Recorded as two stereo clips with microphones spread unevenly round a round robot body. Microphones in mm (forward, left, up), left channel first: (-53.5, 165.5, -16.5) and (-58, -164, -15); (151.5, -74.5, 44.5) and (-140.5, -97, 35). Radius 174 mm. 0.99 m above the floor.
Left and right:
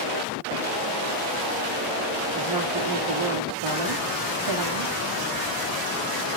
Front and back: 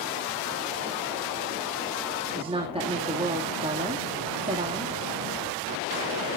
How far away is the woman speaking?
About 2 m.